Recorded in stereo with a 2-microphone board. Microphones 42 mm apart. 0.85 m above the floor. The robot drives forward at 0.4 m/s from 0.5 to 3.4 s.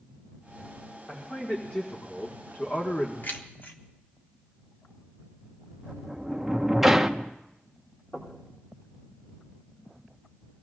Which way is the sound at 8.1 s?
55° left (ahead or behind).